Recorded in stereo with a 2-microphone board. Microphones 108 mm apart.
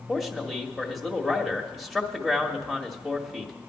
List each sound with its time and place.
0.1 s a man speaking: centre (ahead or behind), 1.4 m